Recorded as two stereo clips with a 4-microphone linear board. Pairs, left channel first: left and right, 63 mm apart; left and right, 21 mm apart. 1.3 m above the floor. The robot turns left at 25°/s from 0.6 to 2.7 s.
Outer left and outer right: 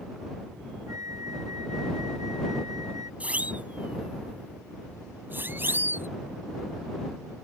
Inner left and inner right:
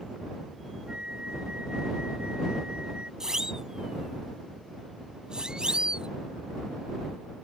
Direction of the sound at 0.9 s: 55° right.